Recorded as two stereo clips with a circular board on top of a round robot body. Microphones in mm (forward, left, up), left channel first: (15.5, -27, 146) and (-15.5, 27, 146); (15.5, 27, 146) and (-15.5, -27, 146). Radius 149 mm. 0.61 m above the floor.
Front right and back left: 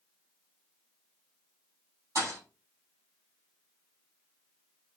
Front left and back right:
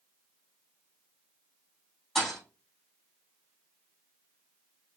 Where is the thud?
150° left, 3.5 m.